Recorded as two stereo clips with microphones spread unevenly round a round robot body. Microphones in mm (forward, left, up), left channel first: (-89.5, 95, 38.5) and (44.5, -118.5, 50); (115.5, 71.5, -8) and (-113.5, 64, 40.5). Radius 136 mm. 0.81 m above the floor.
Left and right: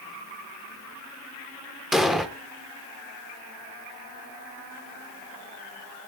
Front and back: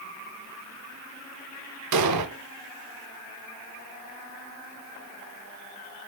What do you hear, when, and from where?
1.9 s an explosion: 145° right, 1.6 m